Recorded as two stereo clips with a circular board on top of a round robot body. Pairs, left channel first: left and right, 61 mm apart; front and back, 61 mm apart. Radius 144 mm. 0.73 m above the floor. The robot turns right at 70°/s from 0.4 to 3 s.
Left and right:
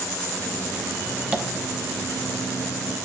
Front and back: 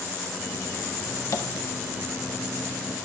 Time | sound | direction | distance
1.3 | tapping | 25° right | 1.3 m